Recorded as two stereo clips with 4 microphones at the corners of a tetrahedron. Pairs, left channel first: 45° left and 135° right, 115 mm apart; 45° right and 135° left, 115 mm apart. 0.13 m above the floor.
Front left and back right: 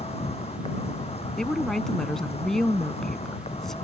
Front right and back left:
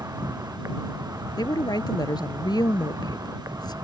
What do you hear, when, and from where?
0.0 s an insect: 70° left
1.4 s a woman speaking: 40° right